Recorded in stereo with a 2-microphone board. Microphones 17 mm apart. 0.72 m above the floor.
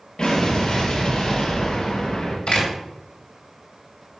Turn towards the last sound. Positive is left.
turn(degrees=65)  # may be behind; listen again after turning